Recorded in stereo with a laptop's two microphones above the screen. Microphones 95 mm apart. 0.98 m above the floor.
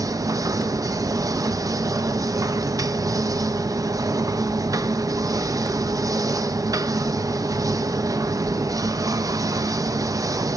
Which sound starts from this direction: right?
A machine running, at 0.0 s.